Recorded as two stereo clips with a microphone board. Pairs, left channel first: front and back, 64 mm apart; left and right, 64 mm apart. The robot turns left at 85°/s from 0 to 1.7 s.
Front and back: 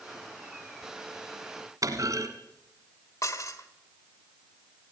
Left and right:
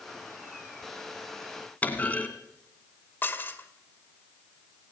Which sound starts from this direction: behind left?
A clunk, at 1.8 s.